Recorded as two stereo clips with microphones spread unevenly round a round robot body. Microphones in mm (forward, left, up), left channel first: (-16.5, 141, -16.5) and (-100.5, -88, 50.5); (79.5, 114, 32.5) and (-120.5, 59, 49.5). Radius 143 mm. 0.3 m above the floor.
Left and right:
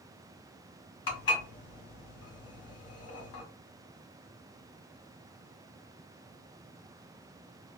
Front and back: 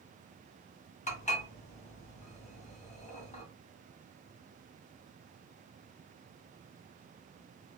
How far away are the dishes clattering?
About 1.3 m.